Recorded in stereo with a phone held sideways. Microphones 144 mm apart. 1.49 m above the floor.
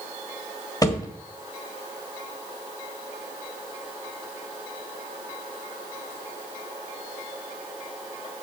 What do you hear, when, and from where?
0.8 s a thud: 25° left (ahead or behind), 1.4 m